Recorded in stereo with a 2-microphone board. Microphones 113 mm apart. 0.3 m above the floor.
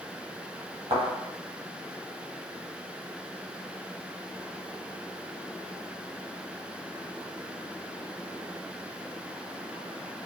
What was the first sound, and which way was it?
A thud, 65° right (ahead or behind).